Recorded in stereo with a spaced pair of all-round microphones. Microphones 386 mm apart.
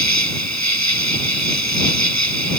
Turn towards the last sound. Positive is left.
turn(degrees=-45)  # may be behind; listen again after turning